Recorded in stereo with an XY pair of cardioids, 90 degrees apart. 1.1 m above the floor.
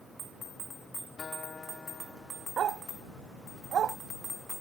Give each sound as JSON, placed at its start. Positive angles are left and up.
{"t": 1.2, "sound": "a guitar", "azimuth_deg": 40}
{"t": 2.6, "sound": "a dog barking", "azimuth_deg": -65}